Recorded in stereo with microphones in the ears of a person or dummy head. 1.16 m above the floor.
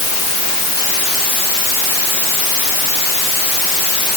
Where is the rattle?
I don't hear a rattle.